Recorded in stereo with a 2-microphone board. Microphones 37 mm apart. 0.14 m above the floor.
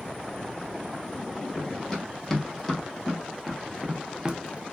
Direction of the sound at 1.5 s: 15° left (ahead or behind).